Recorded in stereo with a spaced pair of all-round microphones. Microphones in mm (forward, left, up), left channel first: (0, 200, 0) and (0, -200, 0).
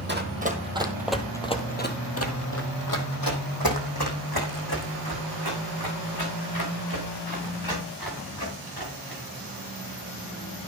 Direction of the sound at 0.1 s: 25° right (ahead or behind).